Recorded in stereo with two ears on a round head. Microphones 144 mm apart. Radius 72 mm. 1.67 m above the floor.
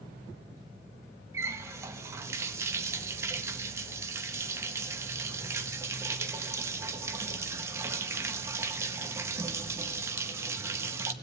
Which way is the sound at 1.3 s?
15° right (ahead or behind).